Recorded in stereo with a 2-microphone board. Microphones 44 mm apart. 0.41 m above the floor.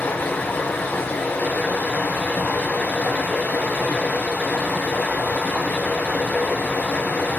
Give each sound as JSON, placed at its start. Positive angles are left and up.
{"t": 0.0, "sound": "running water", "side_deg": 45, "distance_m": 1.8}